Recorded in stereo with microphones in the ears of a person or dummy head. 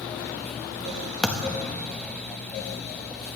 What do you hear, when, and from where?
1.2 s a thud: centre (ahead or behind), 0.8 m